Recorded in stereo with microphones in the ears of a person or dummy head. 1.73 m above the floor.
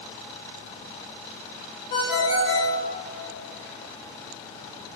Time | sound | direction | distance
1.9 | a ringtone | 55° left (ahead or behind) | 4.5 m